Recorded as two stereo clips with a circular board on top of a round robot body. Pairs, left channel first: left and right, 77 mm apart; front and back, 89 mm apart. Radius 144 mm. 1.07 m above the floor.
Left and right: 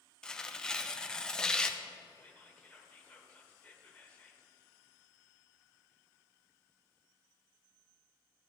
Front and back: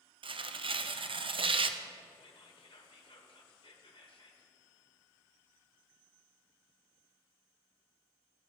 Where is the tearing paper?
170° left, 0.7 m.